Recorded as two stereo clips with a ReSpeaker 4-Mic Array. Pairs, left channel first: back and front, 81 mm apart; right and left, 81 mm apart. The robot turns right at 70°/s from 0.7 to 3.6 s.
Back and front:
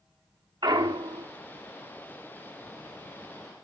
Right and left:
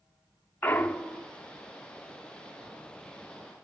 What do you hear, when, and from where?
0.6 s a clunk: 25° right, 0.9 m; by 1.3 s 20° left, 0.9 m